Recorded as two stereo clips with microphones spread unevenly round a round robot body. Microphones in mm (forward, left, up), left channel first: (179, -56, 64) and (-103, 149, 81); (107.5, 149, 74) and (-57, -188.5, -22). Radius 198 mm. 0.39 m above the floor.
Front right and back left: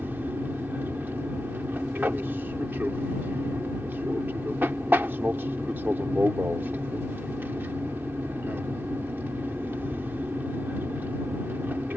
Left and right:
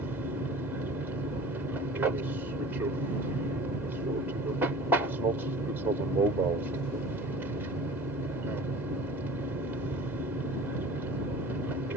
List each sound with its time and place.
0.0 s an aircraft: 135° right